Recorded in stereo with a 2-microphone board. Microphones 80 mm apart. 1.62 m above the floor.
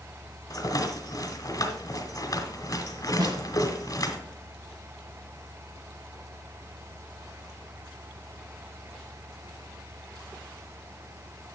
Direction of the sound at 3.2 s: 55° right (ahead or behind).